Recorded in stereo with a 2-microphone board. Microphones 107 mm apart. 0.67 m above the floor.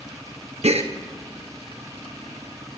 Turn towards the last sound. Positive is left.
turn(degrees=-70)  # may be behind; listen again after turning